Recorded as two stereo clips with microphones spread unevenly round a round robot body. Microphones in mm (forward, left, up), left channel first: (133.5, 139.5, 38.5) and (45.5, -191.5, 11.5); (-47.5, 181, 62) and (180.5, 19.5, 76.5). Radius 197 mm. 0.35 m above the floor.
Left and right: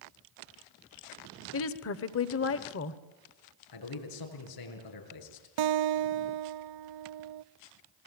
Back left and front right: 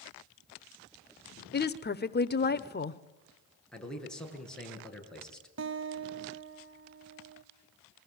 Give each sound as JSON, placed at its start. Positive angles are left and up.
{"t": 1.5, "sound": "a woman speaking", "azimuth_deg": 115, "distance_m": 1.1}
{"t": 3.7, "sound": "a man speaking", "azimuth_deg": 60, "distance_m": 7.0}
{"t": 5.6, "sound": "a guitar", "azimuth_deg": -90, "distance_m": 0.6}